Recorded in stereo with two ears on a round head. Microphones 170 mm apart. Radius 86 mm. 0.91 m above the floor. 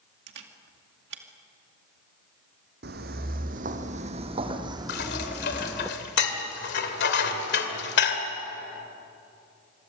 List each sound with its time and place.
0.3 s a camera shutter: 65° right (ahead or behind), 2 m
2.8 s footsteps: 55° right (ahead or behind), 2 m; by 5.9 s centre (ahead or behind), 2 m
4.9 s dishes clattering: 60° left (ahead or behind), 2.5 m